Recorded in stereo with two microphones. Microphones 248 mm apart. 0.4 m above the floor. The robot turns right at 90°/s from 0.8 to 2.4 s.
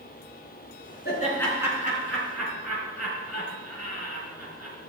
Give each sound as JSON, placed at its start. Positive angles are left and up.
{"t": 1.1, "sound": "laughter", "side_deg": 40, "distance_m": 4.5}